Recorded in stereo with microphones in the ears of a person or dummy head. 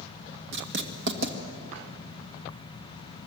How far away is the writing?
About 2 m.